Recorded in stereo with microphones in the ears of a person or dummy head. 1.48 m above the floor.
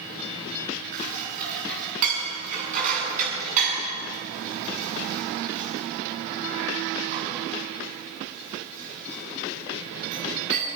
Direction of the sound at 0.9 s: 45° right (ahead or behind).